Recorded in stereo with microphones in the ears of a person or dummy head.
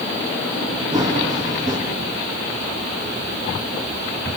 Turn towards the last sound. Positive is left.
turn(degrees=-25)  # may be behind; listen again after turning